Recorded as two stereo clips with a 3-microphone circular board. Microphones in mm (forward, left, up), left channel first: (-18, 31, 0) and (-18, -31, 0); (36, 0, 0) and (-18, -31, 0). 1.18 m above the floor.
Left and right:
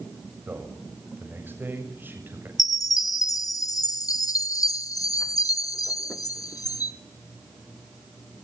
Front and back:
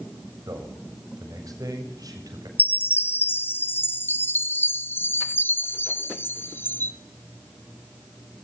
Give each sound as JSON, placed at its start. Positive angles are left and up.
{"t": 0.5, "sound": "a man speaking", "azimuth_deg": -145, "distance_m": 7.0}
{"t": 2.6, "sound": "a chime", "azimuth_deg": 80, "distance_m": 1.0}